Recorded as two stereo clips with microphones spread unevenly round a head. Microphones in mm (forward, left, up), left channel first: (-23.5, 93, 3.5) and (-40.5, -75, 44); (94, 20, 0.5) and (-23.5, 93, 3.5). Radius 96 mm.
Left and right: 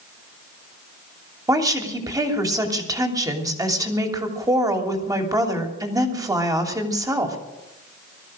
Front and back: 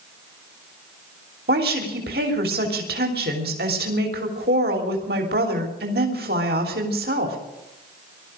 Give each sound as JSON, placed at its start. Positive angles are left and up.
{"t": 1.5, "sound": "a woman speaking", "azimuth_deg": -165, "distance_m": 3.0}